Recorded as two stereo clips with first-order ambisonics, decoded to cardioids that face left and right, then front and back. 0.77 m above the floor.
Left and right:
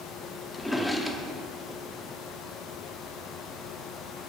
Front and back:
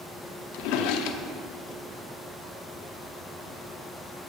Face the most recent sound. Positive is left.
turn(degrees=5)